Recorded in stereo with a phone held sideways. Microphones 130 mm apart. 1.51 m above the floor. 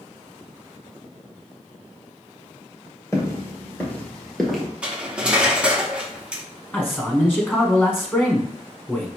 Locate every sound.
3.1 s footsteps: 20° left (ahead or behind), 1.7 m; by 4.7 s centre (ahead or behind), 1.5 m
4.8 s cutlery clinking: 10° right (ahead or behind), 0.7 m
6.7 s a man speaking: 15° left (ahead or behind), 1.1 m